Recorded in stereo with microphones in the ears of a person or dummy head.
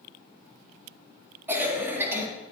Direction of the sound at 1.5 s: 15° right (ahead or behind).